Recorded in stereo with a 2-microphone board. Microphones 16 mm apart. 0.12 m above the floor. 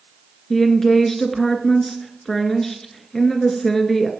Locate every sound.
0.5 s a woman speaking: 30° left (ahead or behind), 1.7 m